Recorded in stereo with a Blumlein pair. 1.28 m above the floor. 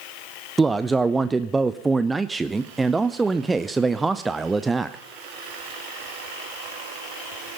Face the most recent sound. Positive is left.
turn(degrees=-10)